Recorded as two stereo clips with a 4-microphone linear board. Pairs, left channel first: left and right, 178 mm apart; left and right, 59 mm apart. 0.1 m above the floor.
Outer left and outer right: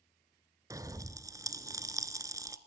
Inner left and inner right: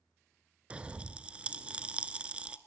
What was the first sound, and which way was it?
A pop, 20° right (ahead or behind).